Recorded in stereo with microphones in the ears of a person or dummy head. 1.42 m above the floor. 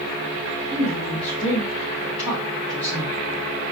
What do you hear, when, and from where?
0.7 s a woman speaking: 25° right (ahead or behind), 3 m; by 3.2 s centre (ahead or behind), 3.5 m